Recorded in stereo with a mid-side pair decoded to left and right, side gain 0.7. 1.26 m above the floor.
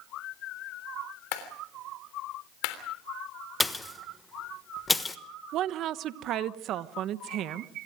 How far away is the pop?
About 1.3 m.